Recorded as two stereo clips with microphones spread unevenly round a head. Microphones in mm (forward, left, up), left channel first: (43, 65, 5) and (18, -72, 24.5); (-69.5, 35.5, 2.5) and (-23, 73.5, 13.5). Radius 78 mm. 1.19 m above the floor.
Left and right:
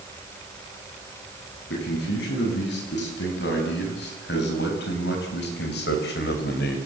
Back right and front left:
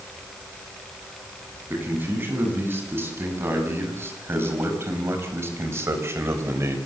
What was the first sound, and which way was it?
A man speaking, 90° left.